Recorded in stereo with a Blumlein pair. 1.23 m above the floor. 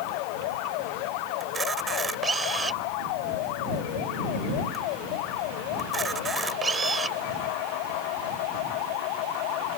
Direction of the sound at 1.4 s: 15° right.